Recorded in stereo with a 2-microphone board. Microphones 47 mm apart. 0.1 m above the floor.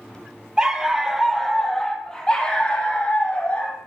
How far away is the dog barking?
About 1.2 m.